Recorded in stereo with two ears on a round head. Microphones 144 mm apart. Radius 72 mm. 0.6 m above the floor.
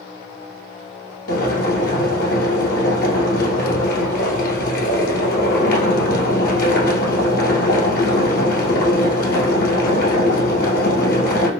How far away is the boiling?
About 1.7 m.